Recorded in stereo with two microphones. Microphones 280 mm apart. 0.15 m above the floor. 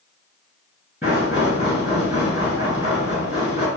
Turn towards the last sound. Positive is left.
turn(degrees=-5)  # may be behind; listen again after turning